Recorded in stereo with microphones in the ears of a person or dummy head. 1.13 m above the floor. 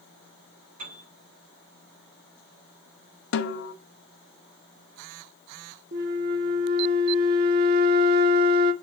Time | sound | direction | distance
0.8 | a piano | 45° right (ahead or behind) | 5.5 m
3.3 | a snare drum | 65° left (ahead or behind) | 0.9 m
5.9 | a flute | 40° right (ahead or behind) | 0.9 m